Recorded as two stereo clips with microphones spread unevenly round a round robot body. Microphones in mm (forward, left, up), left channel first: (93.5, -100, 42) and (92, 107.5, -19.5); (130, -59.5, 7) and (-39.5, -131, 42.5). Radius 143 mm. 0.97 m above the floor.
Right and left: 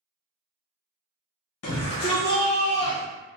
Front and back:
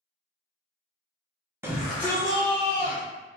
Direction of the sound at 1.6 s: 75° right.